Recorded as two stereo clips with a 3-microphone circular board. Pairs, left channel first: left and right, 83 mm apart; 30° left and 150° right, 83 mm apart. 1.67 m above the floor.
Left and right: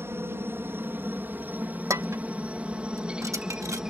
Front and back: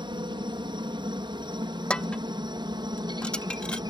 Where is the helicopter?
150° right; by 3.9 s 170° right.